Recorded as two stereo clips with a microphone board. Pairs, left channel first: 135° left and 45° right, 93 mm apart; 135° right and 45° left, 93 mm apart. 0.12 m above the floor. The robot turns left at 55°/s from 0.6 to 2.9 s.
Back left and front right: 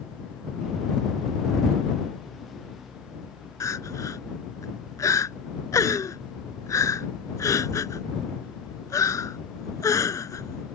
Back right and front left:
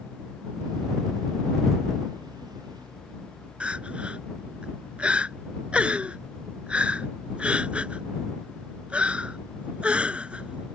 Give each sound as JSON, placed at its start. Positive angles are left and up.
{"t": 3.6, "sound": "crying", "azimuth_deg": 115}